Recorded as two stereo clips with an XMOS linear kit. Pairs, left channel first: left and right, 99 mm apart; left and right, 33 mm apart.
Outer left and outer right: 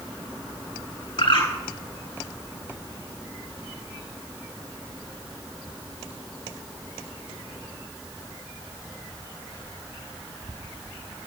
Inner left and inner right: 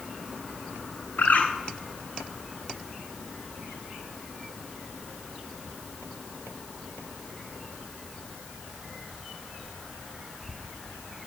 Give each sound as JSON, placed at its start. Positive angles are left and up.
{"t": 1.2, "sound": "a bird", "side_deg": 70, "distance_m": 10.0}